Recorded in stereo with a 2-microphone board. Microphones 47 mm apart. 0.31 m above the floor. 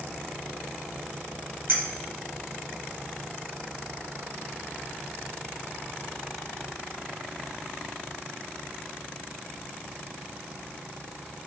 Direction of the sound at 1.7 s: 55° right (ahead or behind).